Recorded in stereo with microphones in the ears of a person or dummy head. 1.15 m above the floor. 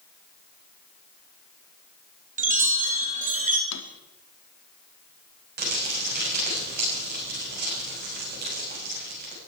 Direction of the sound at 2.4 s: 40° right (ahead or behind).